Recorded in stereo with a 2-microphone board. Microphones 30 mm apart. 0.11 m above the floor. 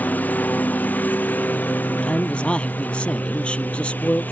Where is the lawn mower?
75° left (ahead or behind); by 4.3 s 85° left.